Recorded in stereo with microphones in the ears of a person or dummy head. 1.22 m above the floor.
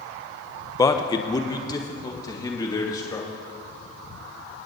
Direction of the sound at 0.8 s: 15° left (ahead or behind).